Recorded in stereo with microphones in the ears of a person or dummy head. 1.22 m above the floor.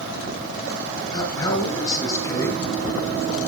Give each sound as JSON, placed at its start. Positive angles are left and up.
{"t": 1.1, "sound": "a man speaking", "side_deg": 25, "distance_m": 6.5}